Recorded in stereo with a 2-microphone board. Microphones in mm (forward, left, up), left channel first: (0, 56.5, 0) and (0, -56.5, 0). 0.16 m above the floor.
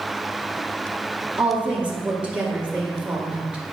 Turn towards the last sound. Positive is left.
turn(degrees=-10)  # may be behind; listen again after turning